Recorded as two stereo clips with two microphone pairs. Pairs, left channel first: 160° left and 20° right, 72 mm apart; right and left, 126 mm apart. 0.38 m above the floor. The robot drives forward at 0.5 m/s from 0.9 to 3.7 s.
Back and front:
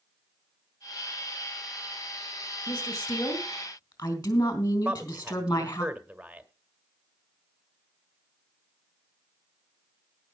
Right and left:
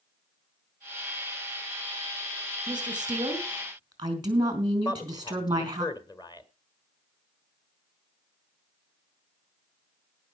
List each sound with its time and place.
2.7 s a woman speaking: 140° left, 3.5 m; by 5.8 s 145° left, 4 m
4.8 s a man speaking: 85° right, 1.7 m